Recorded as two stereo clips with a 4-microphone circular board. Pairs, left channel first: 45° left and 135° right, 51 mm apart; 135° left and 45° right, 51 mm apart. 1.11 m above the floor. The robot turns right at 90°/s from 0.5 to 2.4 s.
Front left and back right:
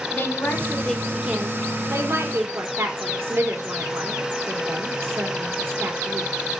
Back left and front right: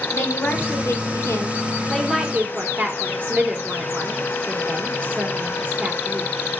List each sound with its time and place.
0.1 s a woman speaking: 90° left, 3.5 m; by 6.3 s 100° right, 3.5 m